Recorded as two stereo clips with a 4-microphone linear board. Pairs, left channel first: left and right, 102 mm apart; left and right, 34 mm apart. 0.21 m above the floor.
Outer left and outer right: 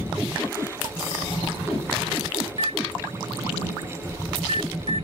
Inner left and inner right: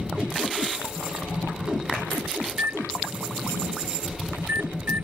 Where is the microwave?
70° right (ahead or behind).